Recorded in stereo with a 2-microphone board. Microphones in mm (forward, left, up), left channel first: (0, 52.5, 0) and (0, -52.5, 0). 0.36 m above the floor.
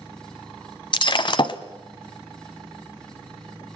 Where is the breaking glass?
50° left (ahead or behind), 0.9 m.